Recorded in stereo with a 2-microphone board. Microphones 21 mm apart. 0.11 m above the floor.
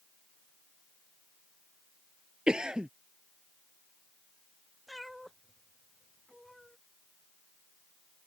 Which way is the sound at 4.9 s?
Centre (ahead or behind).